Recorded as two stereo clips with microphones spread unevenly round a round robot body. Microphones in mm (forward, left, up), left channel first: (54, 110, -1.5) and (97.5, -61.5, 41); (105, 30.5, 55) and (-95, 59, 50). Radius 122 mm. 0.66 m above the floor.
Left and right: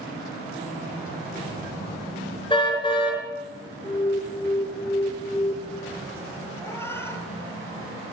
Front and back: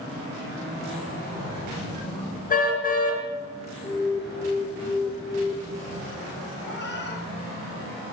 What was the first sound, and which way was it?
A car horn, 40° left.